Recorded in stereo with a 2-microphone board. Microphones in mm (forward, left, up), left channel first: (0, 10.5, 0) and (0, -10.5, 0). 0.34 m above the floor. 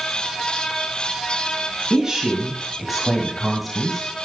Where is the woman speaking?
35° right (ahead or behind), 2 m; by 4.1 s 15° left (ahead or behind), 2 m.